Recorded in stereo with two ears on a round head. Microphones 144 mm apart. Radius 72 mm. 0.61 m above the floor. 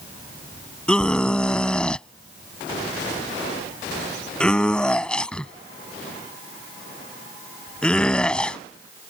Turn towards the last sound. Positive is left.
turn(degrees=5)  # may be behind; listen again after turning